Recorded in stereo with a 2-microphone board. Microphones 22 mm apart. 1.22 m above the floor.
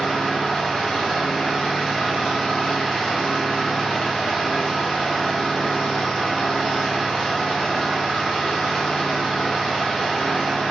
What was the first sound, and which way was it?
An engine running, 40° left (ahead or behind).